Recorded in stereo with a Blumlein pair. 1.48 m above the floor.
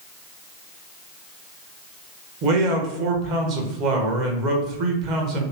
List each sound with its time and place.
2.4 s a man speaking: 40° right, 1.0 m